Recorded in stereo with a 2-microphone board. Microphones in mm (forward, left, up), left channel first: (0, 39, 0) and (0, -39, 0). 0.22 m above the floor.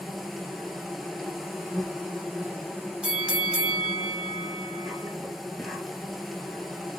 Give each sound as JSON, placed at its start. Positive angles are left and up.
{"t": 0.0, "sound": "an insect", "side_deg": 0, "distance_m": 0.9}
{"t": 3.0, "sound": "a bell", "side_deg": -15, "distance_m": 0.6}